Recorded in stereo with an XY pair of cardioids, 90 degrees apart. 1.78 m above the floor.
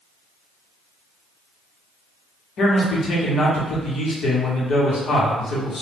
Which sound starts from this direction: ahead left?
A man speaking, at 2.6 s.